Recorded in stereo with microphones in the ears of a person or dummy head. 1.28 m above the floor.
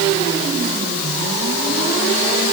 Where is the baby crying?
I don't hear a baby crying.